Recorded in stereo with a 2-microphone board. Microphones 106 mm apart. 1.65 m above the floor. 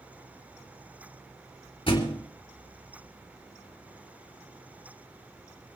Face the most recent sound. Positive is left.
turn(degrees=60)  # may be behind; listen again after turning